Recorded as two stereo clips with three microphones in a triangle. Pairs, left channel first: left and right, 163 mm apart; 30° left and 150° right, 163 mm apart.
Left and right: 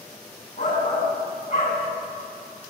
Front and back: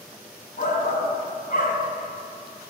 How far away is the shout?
About 3 m.